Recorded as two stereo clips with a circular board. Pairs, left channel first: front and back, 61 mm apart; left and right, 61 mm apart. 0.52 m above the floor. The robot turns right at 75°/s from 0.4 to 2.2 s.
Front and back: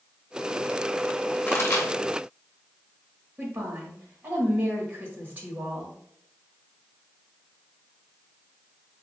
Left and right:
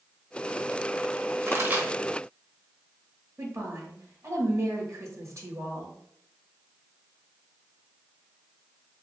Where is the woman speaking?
125° right, 1.9 m.